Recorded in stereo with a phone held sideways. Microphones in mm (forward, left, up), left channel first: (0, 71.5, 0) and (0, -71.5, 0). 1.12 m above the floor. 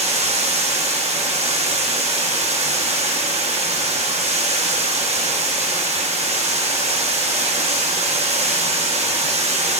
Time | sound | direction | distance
0.0 | running water | 50° right (ahead or behind) | 1.1 m